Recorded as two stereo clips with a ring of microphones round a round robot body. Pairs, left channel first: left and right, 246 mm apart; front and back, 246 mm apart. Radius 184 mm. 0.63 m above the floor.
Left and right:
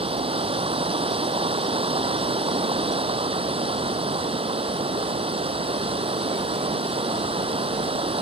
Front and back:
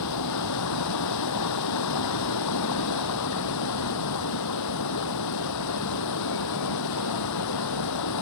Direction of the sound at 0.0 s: 20° right.